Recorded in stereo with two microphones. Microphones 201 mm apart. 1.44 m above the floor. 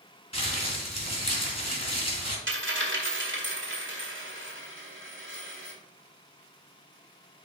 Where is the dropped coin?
65° right (ahead or behind), 2 m.